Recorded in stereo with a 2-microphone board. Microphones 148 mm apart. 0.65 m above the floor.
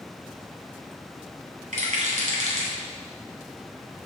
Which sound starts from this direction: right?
A rattle, at 1.7 s.